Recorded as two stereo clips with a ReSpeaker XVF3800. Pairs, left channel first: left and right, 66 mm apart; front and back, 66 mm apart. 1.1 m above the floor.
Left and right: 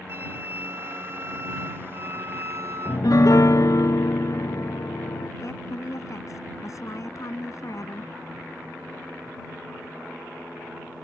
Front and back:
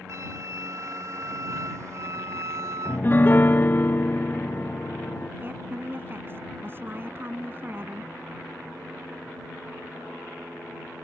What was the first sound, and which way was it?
A flute, 140° right.